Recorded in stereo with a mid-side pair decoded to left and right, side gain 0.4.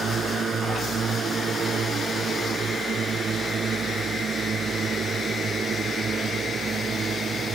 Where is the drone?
55° right; by 7.6 s 50° right.